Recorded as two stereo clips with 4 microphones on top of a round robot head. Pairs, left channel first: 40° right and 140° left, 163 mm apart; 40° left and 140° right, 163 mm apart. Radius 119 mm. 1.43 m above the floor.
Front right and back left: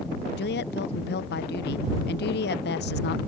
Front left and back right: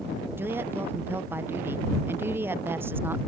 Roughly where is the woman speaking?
Ahead right.